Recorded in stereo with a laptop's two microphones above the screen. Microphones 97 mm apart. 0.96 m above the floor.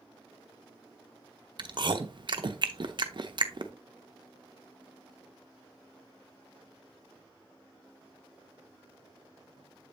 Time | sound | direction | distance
1.6 | chewing | 50° right (ahead or behind) | 0.7 m